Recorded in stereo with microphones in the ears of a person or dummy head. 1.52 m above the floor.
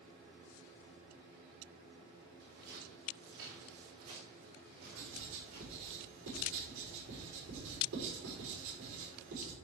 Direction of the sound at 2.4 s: 55° right (ahead or behind).